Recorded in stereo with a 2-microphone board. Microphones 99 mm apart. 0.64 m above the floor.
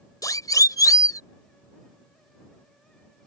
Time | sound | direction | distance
0.2 | a siren | 40° left (ahead or behind) | ?